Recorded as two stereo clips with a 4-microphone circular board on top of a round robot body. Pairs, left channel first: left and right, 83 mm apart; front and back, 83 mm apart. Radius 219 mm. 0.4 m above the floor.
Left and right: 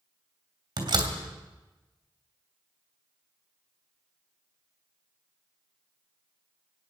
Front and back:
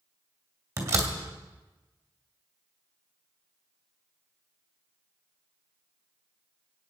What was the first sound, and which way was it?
A door slam, 125° right.